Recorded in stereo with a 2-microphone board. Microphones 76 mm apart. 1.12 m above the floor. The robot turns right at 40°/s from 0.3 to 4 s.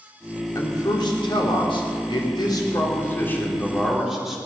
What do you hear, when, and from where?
0.6 s a man speaking: 45° left, 3 m; by 4.4 s straight behind, 3 m